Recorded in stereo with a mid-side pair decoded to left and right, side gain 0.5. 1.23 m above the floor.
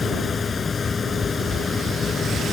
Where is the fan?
30° left.